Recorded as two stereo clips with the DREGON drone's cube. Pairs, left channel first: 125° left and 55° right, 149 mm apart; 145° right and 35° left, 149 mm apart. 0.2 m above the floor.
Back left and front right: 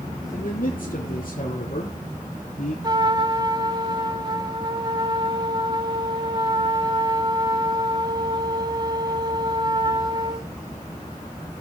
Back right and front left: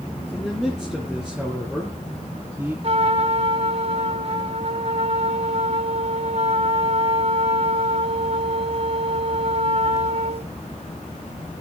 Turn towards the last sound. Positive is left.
turn(degrees=0)